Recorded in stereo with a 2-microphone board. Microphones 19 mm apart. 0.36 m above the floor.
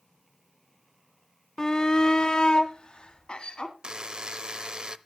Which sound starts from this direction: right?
A buzzer, at 3.8 s.